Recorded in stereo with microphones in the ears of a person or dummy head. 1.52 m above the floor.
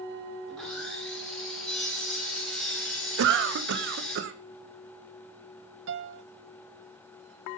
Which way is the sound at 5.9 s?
70° right (ahead or behind).